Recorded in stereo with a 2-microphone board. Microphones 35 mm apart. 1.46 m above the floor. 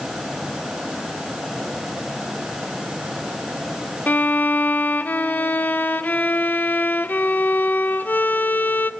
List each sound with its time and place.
4.1 s a violin: 55° left (ahead or behind), 0.8 m